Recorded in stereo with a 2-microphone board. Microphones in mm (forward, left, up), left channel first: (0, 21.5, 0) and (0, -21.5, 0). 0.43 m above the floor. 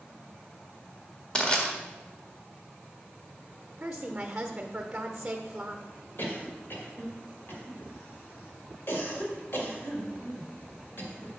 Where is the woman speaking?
20° right (ahead or behind), 0.9 m.